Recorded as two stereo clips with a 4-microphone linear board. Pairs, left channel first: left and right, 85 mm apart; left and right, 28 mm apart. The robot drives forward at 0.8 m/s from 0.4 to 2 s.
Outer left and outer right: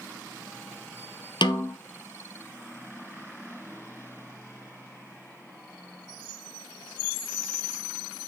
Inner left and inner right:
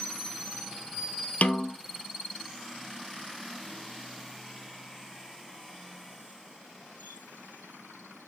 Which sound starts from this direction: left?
A snare drum, at 1.4 s.